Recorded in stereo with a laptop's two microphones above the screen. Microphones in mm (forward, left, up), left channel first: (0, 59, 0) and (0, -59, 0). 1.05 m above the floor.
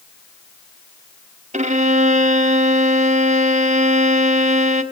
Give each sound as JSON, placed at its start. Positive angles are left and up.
{"t": 1.5, "sound": "a violin", "side_deg": -75, "distance_m": 1.6}